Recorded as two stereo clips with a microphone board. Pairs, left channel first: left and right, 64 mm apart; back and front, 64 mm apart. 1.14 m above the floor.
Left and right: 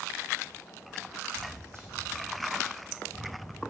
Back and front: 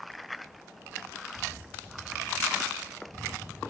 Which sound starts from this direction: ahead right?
Footsteps, at 1.3 s.